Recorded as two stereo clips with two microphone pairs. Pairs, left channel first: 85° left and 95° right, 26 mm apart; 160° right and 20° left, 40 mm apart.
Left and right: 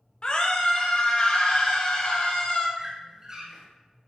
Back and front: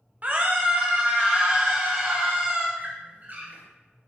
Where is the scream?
55° left, 0.8 m; by 2.7 s 65° left, 2 m.